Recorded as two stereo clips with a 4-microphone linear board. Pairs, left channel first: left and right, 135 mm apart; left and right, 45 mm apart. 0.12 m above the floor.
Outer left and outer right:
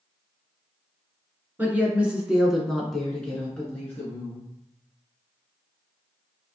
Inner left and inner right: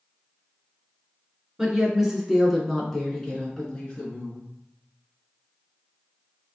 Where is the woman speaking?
15° right (ahead or behind), 1.3 m; by 4.5 s 15° left (ahead or behind), 1.6 m.